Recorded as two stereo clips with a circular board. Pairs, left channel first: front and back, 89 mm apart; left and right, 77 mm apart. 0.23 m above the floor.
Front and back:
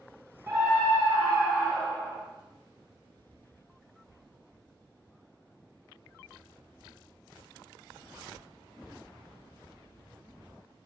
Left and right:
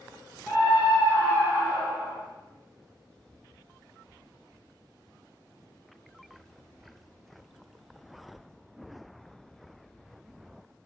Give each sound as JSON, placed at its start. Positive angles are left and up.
{"t": 0.5, "sound": "a scream", "azimuth_deg": 155, "distance_m": 1.8}